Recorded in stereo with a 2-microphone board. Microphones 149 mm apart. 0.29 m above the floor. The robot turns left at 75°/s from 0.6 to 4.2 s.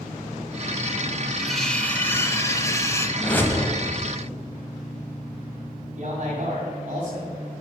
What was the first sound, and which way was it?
Cutlery clinking, centre (ahead or behind).